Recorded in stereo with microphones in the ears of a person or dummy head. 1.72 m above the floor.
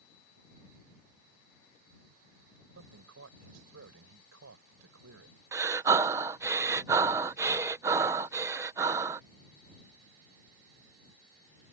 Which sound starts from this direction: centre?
Breathing, at 5.5 s.